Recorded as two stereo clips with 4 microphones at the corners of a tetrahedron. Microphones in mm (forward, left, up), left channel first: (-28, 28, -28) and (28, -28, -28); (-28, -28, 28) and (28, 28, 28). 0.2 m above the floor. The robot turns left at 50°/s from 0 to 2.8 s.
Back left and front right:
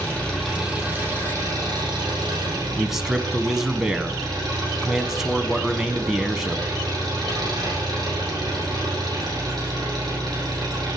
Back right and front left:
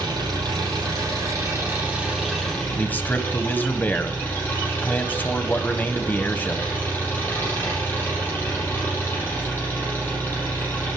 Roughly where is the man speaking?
Behind right.